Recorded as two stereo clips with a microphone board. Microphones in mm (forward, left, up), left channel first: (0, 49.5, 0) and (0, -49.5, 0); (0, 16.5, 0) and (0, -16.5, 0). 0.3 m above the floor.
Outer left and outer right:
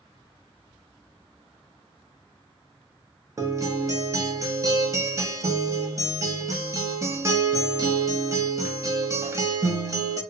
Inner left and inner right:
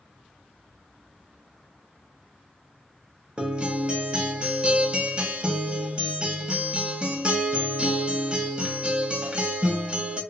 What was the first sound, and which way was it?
A guitar, 30° right (ahead or behind).